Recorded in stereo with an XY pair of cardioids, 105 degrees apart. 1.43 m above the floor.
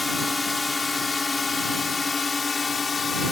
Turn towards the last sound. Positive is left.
turn(degrees=30)